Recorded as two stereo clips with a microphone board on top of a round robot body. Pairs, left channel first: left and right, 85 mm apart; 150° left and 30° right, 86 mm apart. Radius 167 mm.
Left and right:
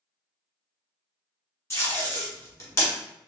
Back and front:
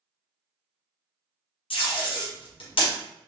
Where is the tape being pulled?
150° left, 1.6 m.